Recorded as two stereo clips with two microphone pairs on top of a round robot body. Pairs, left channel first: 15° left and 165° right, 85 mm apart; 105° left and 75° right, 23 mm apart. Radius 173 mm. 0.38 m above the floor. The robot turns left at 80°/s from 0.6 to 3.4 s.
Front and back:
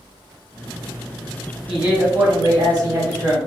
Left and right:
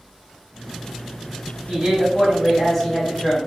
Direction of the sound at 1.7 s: 85° right.